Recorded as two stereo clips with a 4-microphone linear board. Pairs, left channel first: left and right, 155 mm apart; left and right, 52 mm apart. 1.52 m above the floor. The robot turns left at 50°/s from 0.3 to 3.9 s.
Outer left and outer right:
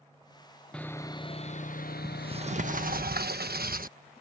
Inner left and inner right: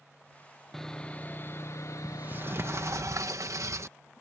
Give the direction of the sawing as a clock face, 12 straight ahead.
6 o'clock.